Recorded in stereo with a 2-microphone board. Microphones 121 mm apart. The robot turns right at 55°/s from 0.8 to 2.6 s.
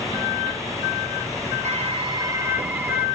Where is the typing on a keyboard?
65° right, 1.6 m; by 3.1 s 15° right, 1.6 m.